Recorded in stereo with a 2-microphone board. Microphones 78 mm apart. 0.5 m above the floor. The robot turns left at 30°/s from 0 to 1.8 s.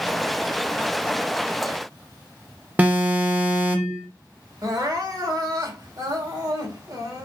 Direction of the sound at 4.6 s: 50° right (ahead or behind).